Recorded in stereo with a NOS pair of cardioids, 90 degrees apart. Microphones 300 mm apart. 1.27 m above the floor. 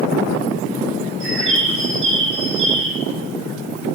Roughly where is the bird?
Ahead right.